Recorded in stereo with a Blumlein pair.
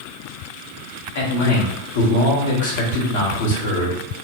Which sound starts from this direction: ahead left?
A man speaking, at 1.1 s.